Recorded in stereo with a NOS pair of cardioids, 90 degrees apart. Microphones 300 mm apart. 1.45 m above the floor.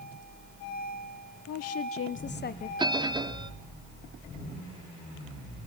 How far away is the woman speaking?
About 0.9 m.